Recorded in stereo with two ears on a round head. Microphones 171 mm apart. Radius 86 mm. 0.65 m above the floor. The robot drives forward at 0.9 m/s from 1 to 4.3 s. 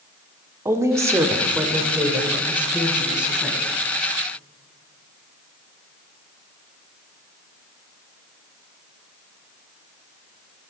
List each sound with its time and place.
0.7 s a woman speaking: 15° right (ahead or behind), 1.2 m; by 3.6 s 5° right (ahead or behind), 3.5 m